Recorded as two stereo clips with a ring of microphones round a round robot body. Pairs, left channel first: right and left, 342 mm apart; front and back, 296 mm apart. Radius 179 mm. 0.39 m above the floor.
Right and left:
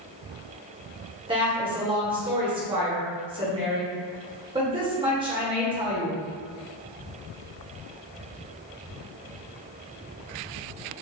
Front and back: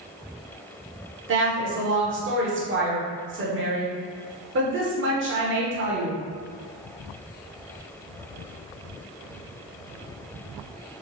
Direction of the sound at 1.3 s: 160° left.